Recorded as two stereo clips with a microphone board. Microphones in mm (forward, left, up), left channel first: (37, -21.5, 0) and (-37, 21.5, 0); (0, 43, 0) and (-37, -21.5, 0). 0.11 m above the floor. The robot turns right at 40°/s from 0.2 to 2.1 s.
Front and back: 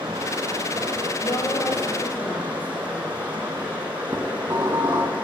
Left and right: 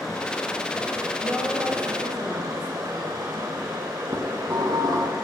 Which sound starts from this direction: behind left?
Running water, at 0.0 s.